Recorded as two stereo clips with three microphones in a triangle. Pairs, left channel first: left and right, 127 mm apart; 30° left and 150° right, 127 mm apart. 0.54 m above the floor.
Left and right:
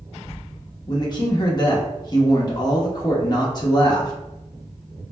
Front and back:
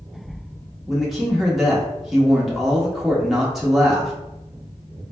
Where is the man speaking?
125° left, 0.8 m.